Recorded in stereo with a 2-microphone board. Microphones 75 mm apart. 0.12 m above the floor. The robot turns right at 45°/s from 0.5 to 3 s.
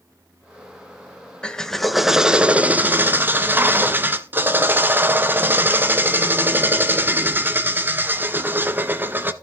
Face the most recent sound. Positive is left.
turn(degrees=-130)